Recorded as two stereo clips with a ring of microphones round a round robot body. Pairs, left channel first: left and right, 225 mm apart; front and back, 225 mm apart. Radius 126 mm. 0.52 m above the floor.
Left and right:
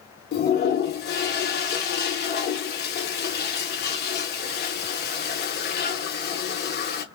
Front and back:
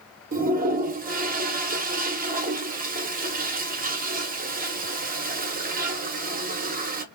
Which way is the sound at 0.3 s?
130° left.